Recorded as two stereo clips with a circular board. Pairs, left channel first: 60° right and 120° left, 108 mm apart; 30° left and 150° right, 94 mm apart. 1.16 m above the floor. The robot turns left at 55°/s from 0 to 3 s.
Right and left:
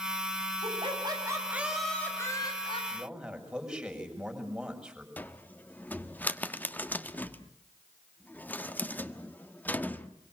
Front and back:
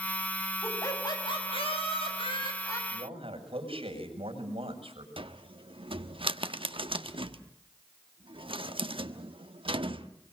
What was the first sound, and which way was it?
Laughter, 95° left.